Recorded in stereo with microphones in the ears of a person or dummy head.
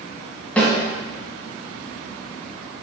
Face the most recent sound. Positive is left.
turn(degrees=5)  # may be behind; listen again after turning